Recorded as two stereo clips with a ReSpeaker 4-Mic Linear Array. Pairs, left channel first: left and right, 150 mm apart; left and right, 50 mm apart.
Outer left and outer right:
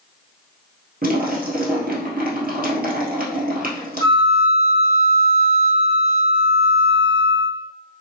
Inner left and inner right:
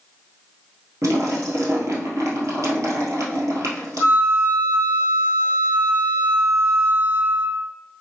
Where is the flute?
40° right (ahead or behind), 0.9 m.